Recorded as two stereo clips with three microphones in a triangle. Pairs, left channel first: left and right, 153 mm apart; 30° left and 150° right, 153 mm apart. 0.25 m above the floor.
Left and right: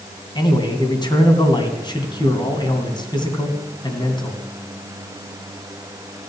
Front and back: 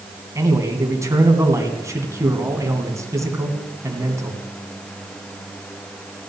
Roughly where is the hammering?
No hammering in this recording.